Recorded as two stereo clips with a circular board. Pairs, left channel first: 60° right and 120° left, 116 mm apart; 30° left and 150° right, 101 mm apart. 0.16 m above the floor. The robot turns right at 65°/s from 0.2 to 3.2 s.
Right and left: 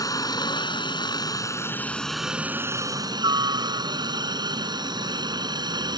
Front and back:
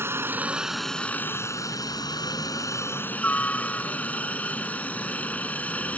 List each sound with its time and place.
0.0 s a helicopter: 100° right; by 6.0 s 95° left